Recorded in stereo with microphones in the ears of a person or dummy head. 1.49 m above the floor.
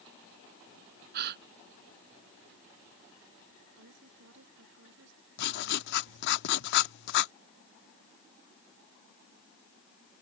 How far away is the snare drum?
I don't hear a snare drum.